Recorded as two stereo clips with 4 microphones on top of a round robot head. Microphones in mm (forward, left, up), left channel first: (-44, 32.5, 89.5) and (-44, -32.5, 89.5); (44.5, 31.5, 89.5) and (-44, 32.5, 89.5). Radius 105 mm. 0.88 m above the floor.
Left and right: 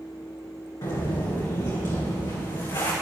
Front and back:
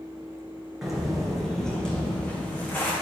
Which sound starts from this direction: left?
Footsteps, at 0.8 s.